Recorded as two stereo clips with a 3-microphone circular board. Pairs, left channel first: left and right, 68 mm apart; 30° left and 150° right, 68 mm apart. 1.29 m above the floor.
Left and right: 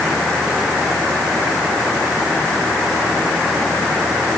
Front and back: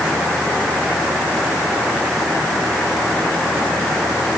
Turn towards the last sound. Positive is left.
No sound to turn to.